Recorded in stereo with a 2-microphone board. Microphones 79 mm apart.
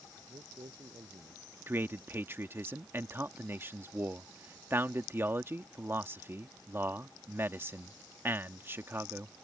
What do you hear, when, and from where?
0.2 s a man speaking: 85° right; by 1.5 s 80° right
1.7 s a man speaking: 30° right (ahead or behind)